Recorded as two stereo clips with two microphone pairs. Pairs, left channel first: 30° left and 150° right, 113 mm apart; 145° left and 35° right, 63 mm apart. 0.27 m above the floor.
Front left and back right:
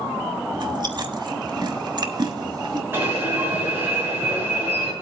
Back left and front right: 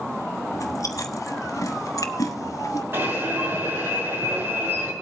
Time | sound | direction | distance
0.5 | chewing | 165° left | 1.0 m
2.9 | an alarm | 80° right | 6.5 m